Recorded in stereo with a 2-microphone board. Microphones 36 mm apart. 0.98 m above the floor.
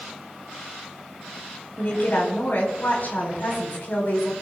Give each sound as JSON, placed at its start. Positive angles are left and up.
{"t": 1.8, "sound": "a woman speaking", "side_deg": 55, "distance_m": 4.5}